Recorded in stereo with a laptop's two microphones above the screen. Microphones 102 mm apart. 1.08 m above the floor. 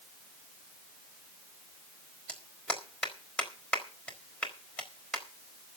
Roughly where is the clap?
Centre.